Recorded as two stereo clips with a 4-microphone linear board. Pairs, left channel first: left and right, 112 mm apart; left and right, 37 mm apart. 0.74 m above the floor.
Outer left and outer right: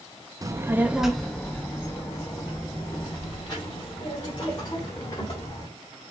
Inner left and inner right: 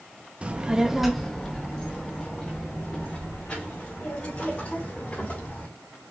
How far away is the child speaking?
About 0.6 m.